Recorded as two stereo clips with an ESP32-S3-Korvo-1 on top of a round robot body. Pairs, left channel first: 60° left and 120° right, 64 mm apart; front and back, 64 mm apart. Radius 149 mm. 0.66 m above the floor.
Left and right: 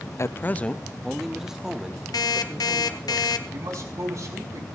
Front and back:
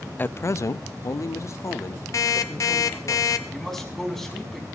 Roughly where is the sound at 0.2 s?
Ahead left.